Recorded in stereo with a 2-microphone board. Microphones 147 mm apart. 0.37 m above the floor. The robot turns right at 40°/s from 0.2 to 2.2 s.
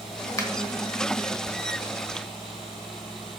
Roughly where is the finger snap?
Left.